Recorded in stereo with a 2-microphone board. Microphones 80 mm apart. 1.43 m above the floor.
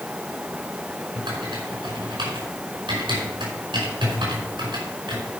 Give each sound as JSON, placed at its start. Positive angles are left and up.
{"t": 1.1, "sound": "typing on a keyboard", "side_deg": -80, "distance_m": 5.0}